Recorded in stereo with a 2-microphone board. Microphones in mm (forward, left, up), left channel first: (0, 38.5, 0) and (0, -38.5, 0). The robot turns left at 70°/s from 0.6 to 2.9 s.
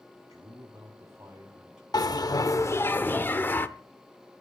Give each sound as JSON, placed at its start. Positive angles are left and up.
{"t": 0.3, "sound": "a man speaking", "azimuth_deg": -90, "distance_m": 1.8}
{"t": 1.9, "sound": "a bell", "azimuth_deg": 100, "distance_m": 0.8}